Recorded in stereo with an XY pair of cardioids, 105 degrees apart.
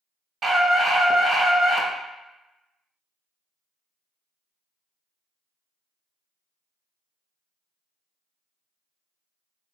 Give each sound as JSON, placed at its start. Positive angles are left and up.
{"t": 0.4, "sound": "a scream", "azimuth_deg": -50, "distance_m": 0.8}